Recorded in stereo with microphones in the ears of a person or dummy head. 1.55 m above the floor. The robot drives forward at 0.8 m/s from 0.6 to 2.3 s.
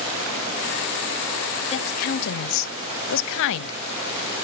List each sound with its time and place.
1.7 s a woman speaking: 35° left (ahead or behind), 0.8 m; by 3.8 s 65° left (ahead or behind), 0.5 m